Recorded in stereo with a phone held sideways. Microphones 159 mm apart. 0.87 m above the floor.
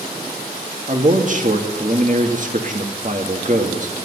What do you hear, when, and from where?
0.9 s a man speaking: 55° right (ahead or behind), 1.8 m